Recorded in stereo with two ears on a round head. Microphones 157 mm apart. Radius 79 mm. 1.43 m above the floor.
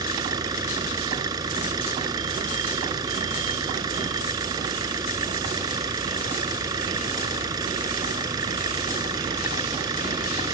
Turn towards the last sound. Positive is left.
turn(degrees=-20)  # may be behind; listen again after turning